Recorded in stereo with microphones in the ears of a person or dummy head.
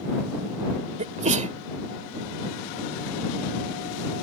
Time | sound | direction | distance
1.0 | a sneeze | 35° right (ahead or behind) | ?